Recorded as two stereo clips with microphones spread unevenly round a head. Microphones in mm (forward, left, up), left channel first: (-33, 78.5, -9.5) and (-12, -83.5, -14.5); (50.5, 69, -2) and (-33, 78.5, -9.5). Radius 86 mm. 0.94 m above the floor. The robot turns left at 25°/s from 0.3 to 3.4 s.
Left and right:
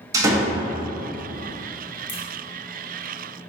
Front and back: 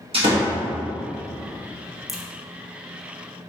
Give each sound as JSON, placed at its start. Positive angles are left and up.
{"t": 0.1, "sound": "a door slam", "azimuth_deg": -155, "distance_m": 0.8}
{"t": 2.1, "sound": "a crack", "azimuth_deg": 85, "distance_m": 1.0}